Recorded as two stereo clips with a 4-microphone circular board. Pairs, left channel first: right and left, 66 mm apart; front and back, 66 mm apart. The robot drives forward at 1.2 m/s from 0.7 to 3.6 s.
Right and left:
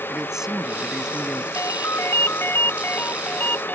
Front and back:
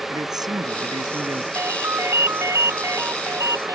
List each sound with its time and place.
0.1 s a man speaking: 175° left
1.6 s a ringtone: 130° right; by 3.8 s 150° right